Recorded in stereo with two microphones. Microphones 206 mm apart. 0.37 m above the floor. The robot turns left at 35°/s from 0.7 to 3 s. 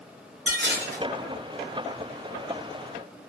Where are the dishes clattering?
65° right (ahead or behind), 1.2 m; by 1.0 s 55° right (ahead or behind), 1.2 m.